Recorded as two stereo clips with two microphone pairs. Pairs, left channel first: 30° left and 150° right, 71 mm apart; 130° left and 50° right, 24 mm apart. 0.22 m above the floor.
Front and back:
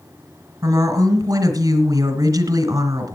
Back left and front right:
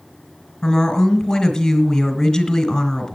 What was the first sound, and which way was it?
A woman speaking, straight behind.